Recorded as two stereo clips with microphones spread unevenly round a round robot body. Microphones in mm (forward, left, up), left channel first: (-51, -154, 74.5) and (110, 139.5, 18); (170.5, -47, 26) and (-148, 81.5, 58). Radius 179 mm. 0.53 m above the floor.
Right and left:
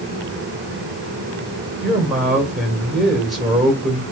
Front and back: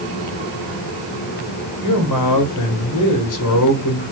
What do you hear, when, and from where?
1.8 s a man speaking: 25° right, 2 m